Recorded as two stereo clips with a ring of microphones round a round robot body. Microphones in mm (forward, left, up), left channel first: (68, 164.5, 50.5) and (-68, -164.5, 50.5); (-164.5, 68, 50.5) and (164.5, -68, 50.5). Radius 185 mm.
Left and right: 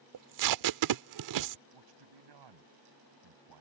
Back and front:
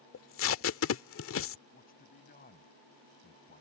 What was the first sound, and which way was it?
Tape being pulled, 150° right.